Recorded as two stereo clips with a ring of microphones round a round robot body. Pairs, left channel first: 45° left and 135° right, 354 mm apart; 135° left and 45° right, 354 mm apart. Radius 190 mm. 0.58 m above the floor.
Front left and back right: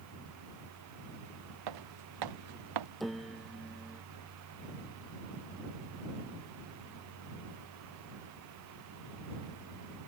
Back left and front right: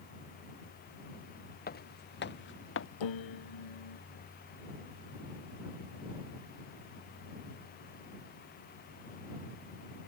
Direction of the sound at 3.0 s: 135° left.